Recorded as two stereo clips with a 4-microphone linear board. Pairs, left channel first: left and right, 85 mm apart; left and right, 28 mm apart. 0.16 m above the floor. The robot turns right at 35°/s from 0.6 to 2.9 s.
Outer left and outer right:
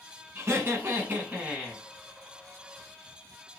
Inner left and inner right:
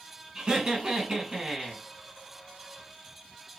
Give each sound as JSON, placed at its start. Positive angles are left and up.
{"t": 0.3, "sound": "laughter", "azimuth_deg": -50, "distance_m": 1.7}